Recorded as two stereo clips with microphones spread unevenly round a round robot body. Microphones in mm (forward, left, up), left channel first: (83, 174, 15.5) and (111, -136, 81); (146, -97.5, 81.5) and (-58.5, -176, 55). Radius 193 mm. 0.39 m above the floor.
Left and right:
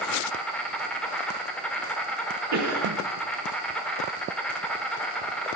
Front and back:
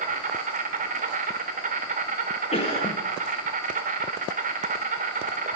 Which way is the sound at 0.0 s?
170° left.